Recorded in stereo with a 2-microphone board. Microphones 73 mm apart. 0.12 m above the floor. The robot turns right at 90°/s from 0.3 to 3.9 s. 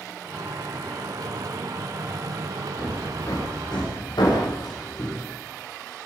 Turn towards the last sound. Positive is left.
turn(degrees=85)